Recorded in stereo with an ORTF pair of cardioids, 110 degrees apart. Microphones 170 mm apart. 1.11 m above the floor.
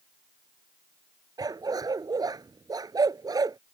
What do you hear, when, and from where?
1.4 s a dog barking: 20° right